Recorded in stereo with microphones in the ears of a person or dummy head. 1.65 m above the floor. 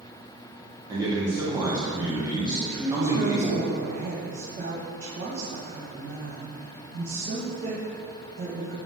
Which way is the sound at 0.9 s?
20° right (ahead or behind).